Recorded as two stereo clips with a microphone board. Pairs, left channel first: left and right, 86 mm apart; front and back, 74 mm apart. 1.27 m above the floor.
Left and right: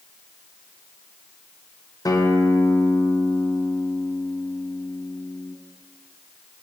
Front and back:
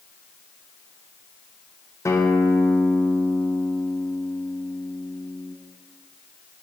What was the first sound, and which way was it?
A guitar, 45° left.